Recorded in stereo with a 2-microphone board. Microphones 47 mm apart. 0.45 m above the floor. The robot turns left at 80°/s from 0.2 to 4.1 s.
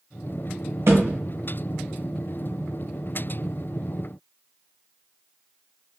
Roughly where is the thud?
Right.